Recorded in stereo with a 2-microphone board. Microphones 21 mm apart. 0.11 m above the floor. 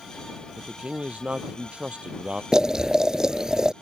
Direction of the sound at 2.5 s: 35° right (ahead or behind).